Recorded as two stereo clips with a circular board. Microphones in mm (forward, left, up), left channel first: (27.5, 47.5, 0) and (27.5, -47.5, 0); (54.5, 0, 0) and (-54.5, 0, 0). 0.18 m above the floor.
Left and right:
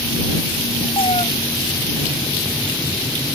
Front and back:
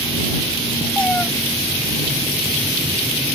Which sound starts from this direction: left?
A cat meowing, at 1.0 s.